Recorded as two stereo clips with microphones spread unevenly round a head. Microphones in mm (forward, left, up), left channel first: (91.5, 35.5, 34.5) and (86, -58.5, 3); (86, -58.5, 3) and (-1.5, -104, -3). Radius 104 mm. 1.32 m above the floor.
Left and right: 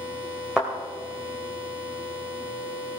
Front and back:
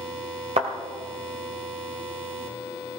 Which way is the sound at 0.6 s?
170° left.